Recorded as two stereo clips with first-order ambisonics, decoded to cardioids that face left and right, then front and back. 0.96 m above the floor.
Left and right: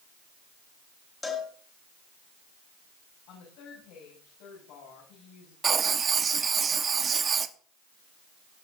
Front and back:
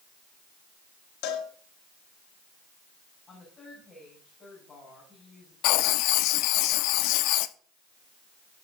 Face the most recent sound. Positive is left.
turn(degrees=-20)